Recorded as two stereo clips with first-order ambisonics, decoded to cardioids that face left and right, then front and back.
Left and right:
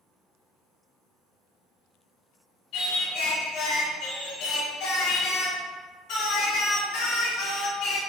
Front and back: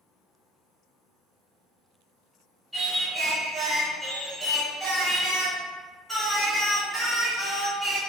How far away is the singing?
About 1.7 m.